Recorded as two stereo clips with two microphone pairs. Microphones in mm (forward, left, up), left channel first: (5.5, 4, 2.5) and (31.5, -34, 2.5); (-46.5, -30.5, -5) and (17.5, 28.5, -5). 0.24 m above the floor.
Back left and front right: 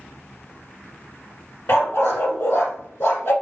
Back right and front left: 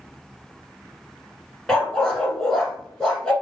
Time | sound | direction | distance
1.7 | a dog barking | 145° left | 1.1 m